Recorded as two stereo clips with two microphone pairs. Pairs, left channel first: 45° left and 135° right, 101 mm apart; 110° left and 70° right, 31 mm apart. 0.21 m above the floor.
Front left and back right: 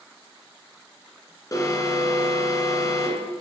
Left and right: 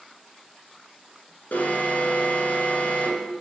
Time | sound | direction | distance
1.5 | an alarm | 95° left | 2.5 m